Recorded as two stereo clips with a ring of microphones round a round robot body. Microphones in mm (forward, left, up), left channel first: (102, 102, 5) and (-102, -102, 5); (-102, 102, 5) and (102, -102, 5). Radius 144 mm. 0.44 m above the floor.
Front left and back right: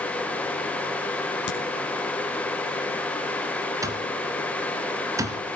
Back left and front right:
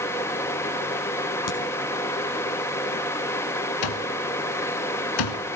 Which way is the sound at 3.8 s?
145° left.